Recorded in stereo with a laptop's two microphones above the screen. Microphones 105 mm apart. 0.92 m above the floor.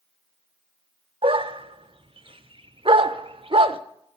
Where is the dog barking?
60° right (ahead or behind), 1.0 m.